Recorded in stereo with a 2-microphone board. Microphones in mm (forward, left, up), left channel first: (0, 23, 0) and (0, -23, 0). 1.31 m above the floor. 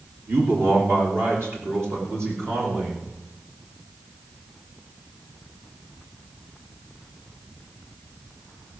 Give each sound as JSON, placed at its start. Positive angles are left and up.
{"t": 0.3, "sound": "a man speaking", "side_deg": -60, "distance_m": 2.5}